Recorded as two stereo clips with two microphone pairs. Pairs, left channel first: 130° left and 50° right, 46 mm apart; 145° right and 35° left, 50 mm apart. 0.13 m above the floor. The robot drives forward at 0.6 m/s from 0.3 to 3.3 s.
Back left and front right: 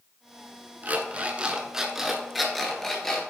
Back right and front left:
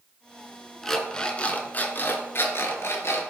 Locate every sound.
0.8 s an alarm clock: 65° right, 1.0 m; by 3.2 s 155° right, 1.5 m